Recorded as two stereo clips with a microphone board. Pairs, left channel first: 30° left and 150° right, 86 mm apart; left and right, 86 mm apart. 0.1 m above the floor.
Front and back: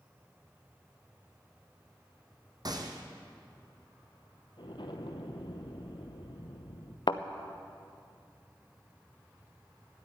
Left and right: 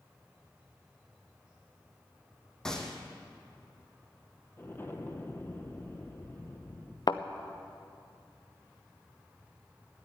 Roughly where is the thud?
Ahead left.